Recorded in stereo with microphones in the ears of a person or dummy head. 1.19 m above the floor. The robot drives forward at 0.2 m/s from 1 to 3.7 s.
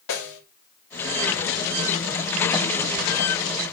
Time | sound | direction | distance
0.1 | a snare drum | 65° left (ahead or behind) | 4.5 m